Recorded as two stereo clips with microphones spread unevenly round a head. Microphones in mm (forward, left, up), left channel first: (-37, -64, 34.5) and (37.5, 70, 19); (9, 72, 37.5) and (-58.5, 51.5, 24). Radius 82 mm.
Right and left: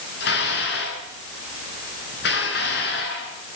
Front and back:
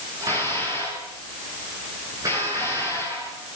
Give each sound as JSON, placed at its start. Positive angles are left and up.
{"t": 0.2, "sound": "dishes clattering", "azimuth_deg": -100, "distance_m": 9.5}